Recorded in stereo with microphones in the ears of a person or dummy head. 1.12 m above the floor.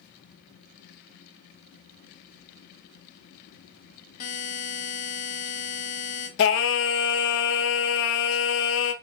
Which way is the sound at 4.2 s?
40° left (ahead or behind).